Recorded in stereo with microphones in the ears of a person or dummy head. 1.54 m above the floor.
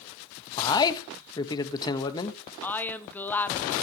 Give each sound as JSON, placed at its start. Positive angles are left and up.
{"t": 0.6, "sound": "a man speaking", "side_deg": 25, "distance_m": 1.5}
{"t": 2.6, "sound": "a woman speaking", "side_deg": 10, "distance_m": 1.2}